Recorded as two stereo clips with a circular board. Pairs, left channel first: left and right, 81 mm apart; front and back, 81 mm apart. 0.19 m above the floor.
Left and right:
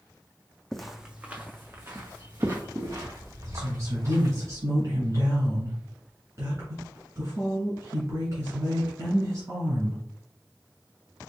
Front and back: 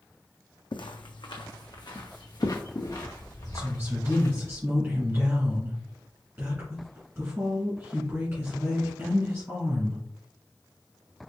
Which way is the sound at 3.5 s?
115° right.